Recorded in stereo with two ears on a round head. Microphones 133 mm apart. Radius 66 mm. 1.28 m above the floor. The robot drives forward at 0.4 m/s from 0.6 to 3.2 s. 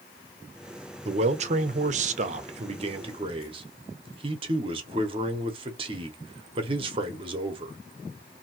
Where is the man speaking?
40° right (ahead or behind), 0.7 m; by 7.8 s 35° right (ahead or behind), 0.8 m.